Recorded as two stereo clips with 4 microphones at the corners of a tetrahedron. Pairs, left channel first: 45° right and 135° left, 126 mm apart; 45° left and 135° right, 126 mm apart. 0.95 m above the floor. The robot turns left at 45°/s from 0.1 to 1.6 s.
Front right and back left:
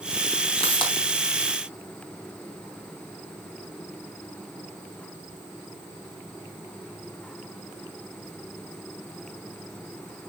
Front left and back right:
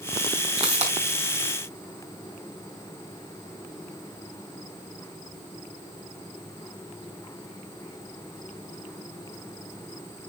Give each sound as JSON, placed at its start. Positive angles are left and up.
{"t": 0.6, "sound": "a pop", "azimuth_deg": -90, "distance_m": 3.5}